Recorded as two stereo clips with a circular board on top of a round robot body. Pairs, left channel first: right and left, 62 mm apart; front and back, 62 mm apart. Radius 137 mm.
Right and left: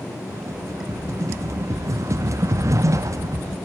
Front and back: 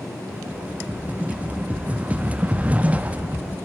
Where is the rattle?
115° left, 1.4 m.